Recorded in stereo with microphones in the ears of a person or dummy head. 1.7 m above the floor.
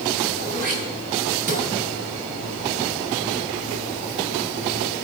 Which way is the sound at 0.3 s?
50° right (ahead or behind).